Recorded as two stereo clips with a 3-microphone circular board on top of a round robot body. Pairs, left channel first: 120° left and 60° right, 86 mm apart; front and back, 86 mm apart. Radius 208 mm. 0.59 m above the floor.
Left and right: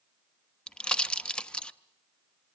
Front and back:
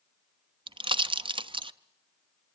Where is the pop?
160° right, 0.9 m.